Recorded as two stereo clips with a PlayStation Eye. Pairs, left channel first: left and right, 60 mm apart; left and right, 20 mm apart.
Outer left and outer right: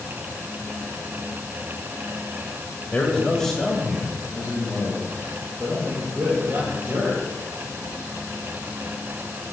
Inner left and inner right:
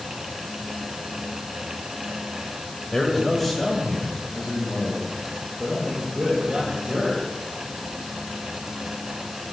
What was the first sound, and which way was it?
A man speaking, 25° left (ahead or behind).